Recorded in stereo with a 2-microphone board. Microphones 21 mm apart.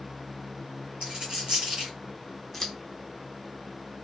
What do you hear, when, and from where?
1.0 s a dropped coin: 55° right (ahead or behind), 2.5 m
2.5 s scissors: 10° left (ahead or behind), 1.3 m